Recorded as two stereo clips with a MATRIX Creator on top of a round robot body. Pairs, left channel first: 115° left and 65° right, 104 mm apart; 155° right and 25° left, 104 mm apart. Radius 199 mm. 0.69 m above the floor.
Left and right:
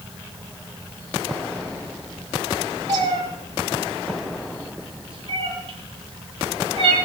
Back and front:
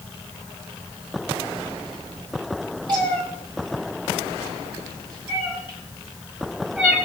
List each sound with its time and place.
2.9 s a cat meowing: 20° right, 8 m; by 7.0 s 45° right, 6.5 m